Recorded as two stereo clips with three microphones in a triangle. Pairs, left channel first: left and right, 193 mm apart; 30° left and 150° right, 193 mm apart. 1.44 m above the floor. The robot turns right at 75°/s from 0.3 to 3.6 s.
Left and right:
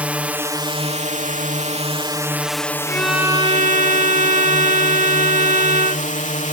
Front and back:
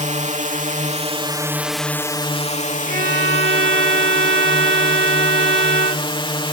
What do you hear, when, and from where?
0.0 s a drone: 170° right; by 6.5 s 80° left
2.9 s a violin: 165° left; by 6.1 s 140° right